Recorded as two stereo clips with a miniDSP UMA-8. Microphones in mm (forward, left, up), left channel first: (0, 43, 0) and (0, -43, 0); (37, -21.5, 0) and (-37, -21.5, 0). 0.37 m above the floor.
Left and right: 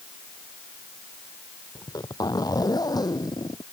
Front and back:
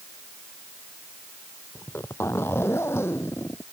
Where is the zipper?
55° left.